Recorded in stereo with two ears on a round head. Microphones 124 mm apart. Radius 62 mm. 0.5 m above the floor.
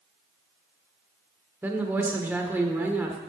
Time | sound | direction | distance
1.6 | a woman speaking | 15° right (ahead or behind) | 1.3 m